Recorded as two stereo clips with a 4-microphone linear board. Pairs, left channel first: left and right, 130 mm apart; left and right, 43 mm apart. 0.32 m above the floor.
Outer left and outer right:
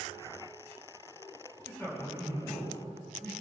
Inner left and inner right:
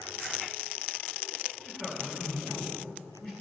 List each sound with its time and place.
1.6 s a man speaking: 20° left (ahead or behind), 3 m